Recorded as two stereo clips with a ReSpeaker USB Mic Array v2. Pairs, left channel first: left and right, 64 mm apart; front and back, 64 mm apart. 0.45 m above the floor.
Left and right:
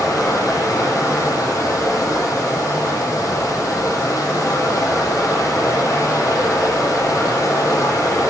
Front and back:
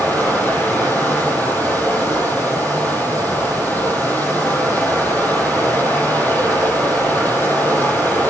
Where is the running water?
60° left, 9 m.